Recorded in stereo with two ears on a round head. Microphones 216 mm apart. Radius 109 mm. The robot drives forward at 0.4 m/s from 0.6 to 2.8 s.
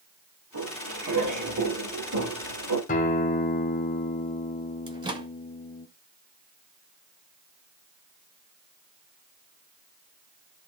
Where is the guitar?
35° left (ahead or behind), 1.5 m.